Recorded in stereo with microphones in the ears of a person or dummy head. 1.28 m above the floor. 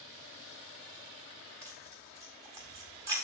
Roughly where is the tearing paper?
Right.